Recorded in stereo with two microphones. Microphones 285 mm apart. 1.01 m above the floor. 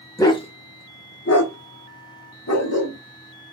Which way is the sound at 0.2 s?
10° left (ahead or behind).